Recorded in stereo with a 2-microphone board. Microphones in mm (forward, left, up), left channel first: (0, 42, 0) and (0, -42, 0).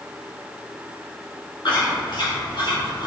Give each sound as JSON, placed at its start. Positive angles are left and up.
{"t": 1.6, "sound": "chewing", "side_deg": 70, "distance_m": 1.7}